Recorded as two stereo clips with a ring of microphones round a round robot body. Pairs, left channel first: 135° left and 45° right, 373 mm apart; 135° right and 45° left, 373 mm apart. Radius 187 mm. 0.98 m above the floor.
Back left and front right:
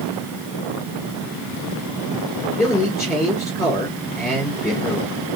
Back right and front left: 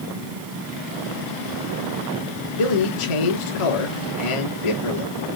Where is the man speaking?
140° right, 2.5 m.